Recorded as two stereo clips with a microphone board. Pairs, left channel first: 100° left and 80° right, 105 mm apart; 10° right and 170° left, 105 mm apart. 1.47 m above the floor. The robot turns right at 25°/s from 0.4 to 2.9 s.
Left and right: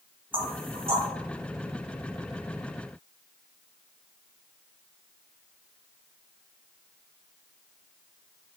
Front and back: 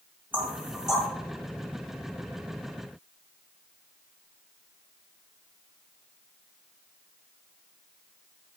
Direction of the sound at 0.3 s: 120° right.